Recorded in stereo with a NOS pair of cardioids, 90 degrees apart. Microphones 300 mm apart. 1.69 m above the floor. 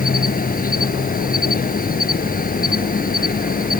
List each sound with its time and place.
0.0 s an insect: 30° left